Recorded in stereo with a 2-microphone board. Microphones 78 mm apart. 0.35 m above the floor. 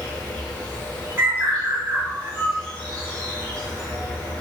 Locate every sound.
0.0 s an insect: 15° left (ahead or behind), 0.9 m
1.2 s a bird: 25° right (ahead or behind), 1.2 m